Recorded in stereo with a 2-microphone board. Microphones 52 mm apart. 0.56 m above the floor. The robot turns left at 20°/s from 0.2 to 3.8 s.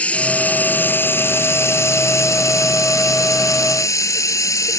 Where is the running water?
155° left; by 4.8 s 85° left.